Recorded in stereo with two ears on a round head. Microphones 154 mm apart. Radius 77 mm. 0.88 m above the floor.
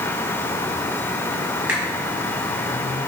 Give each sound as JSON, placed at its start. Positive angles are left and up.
{"t": 1.7, "sound": "a finger snap", "side_deg": -5, "distance_m": 6.0}